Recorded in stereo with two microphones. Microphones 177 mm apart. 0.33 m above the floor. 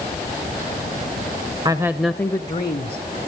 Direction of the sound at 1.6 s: 25° right (ahead or behind).